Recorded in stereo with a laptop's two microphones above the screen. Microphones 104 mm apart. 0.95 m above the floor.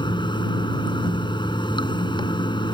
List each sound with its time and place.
0.0 s running water: 45° left (ahead or behind)